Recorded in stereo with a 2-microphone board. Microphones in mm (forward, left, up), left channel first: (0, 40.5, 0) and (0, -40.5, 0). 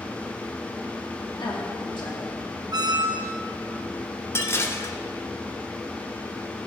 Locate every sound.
1.4 s a woman speaking: 80° left, 3 m
2.7 s a squeak: 55° right (ahead or behind), 0.8 m
4.3 s dishes clattering: 30° left (ahead or behind), 0.8 m